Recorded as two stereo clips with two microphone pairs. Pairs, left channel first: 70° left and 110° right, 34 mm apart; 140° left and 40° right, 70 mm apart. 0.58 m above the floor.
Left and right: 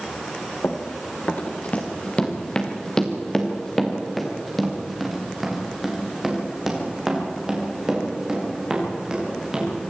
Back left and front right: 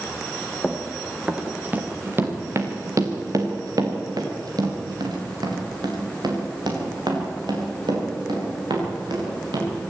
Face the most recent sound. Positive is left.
turn(degrees=-40)